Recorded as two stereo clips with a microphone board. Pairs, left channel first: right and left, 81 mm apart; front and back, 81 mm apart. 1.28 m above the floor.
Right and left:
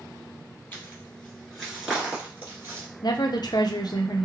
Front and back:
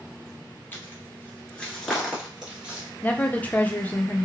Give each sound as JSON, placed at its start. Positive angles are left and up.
{"t": 0.7, "sound": "footsteps", "azimuth_deg": -40, "distance_m": 1.5}
{"t": 3.0, "sound": "a woman speaking", "azimuth_deg": -70, "distance_m": 0.6}